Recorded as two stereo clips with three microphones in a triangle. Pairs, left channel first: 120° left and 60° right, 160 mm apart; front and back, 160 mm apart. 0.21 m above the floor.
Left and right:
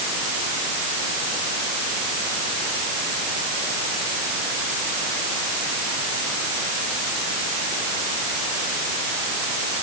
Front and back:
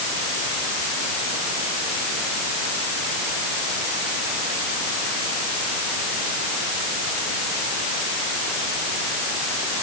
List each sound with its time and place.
Only background noise.